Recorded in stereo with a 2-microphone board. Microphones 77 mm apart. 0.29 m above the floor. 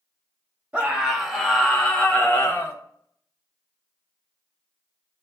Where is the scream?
15° right (ahead or behind), 1.3 m; by 2.8 s 35° left (ahead or behind), 1.6 m.